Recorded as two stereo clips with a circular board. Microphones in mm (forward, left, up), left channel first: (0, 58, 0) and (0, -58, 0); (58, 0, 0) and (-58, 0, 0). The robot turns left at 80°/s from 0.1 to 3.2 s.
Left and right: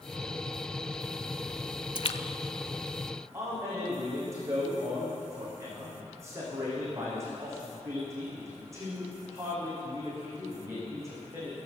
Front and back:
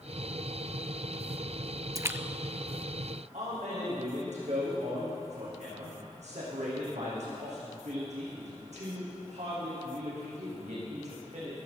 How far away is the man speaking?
About 6.5 m.